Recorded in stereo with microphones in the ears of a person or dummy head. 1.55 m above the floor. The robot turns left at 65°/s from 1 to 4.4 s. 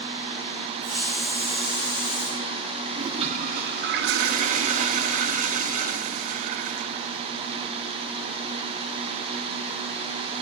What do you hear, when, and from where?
0.8 s a hiss: 130° right, 8.5 m; by 2.3 s 145° left, 8.5 m
2.9 s a toilet flushing: 25° right, 0.8 m; by 7.1 s 120° right, 0.8 m